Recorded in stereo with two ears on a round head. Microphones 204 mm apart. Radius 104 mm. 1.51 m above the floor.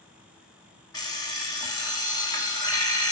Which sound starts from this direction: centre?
An alarm clock, at 0.9 s.